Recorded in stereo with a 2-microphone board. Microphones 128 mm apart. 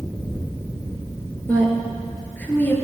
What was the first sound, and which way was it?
A woman speaking, 15° left (ahead or behind).